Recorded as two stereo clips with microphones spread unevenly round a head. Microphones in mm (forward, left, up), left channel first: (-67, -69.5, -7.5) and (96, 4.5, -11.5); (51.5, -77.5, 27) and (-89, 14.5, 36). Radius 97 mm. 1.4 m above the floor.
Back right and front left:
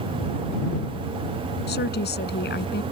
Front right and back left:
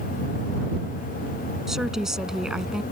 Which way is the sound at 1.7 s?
125° right.